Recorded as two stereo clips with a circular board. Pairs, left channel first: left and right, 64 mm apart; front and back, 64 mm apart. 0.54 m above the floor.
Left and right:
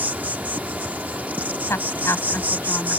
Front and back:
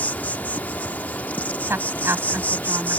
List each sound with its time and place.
0.0 s an insect: 45° right
1.7 s a woman speaking: 130° left